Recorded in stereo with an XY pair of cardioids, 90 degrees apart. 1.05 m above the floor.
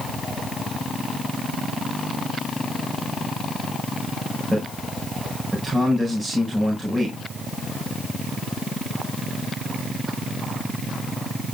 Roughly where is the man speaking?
Ahead.